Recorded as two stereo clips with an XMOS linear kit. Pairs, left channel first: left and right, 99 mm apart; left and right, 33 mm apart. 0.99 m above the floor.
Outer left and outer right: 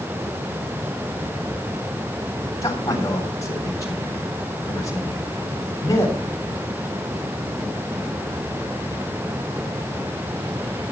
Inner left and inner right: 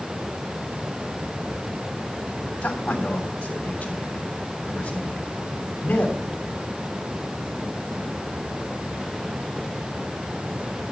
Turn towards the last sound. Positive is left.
turn(degrees=35)  # may be behind; listen again after turning